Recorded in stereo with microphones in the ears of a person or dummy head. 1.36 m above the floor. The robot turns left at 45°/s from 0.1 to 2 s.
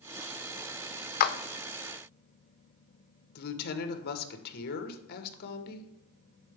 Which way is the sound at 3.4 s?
55° left (ahead or behind).